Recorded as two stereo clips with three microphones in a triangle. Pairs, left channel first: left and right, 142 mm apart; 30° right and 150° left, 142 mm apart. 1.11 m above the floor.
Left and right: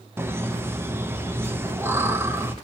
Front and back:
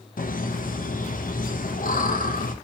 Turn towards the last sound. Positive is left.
turn(degrees=-15)